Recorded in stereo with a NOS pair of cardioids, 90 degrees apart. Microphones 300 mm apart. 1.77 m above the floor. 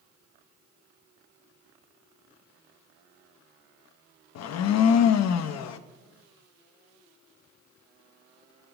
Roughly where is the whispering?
No whispering in this recording.